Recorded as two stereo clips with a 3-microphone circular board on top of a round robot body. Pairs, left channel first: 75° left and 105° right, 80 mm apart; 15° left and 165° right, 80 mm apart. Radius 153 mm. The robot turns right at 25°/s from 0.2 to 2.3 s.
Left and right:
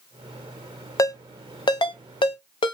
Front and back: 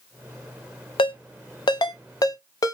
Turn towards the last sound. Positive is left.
turn(degrees=60)